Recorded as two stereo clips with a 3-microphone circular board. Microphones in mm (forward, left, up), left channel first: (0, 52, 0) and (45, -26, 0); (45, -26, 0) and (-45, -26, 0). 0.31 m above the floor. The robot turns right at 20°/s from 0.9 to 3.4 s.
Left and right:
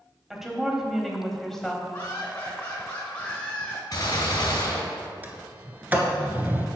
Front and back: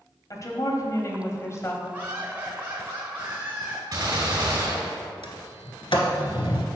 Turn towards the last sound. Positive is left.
turn(degrees=10)